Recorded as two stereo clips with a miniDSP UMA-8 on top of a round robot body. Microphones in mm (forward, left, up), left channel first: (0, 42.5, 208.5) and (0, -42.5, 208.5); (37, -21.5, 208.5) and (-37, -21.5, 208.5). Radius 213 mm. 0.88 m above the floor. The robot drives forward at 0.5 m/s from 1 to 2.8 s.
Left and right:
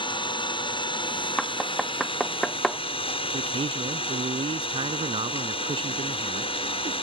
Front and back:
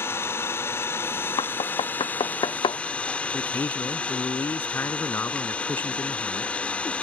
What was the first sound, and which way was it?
An engine running, 60° left.